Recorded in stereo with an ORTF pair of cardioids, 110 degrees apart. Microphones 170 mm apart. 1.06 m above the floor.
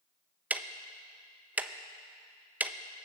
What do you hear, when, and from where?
0.5 s ticking: 10° right, 0.6 m